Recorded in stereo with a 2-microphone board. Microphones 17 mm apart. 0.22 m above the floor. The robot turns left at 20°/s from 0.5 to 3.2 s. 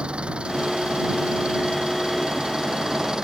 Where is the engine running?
85° right; by 3.2 s 140° right.